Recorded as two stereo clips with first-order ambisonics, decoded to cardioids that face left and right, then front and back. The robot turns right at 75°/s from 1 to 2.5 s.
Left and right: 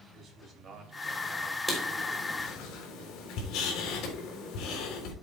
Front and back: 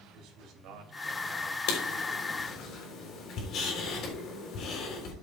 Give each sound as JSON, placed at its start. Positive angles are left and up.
{"t": 0.1, "sound": "a man speaking", "azimuth_deg": -145, "distance_m": 3.5}
{"t": 1.7, "sound": "writing", "azimuth_deg": -10, "distance_m": 3.5}